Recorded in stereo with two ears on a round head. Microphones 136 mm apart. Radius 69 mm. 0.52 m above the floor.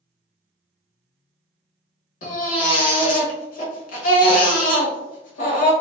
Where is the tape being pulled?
I don't hear tape being pulled.